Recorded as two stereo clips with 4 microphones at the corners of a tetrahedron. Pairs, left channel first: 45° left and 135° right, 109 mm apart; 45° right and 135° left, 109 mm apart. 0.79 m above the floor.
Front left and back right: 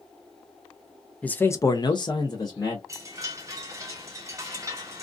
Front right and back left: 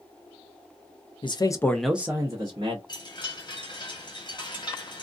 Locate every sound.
1.2 s a man speaking: 30° right, 0.6 m; by 2.8 s 95° left, 1.0 m
2.9 s a chime: 80° right, 1.0 m